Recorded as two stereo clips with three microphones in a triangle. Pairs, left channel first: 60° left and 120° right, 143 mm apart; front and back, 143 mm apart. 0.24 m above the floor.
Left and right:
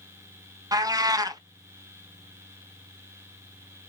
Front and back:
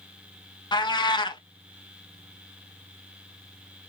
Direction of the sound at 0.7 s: 55° right.